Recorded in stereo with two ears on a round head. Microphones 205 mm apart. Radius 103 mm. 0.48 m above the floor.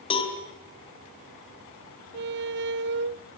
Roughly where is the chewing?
I don't hear chewing.